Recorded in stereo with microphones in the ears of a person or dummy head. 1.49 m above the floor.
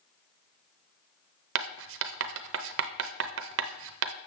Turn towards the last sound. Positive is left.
turn(degrees=-80)